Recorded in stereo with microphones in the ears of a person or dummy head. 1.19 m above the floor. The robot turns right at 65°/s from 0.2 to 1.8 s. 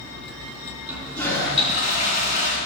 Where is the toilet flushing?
10° right, 4 m; by 2.6 s 50° left, 4 m.